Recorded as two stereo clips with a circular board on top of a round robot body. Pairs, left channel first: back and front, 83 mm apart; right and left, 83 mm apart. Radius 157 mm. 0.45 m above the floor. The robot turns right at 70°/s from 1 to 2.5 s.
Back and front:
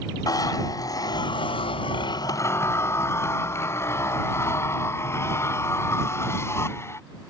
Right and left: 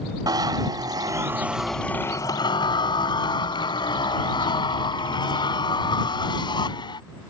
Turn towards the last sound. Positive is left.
turn(degrees=-120)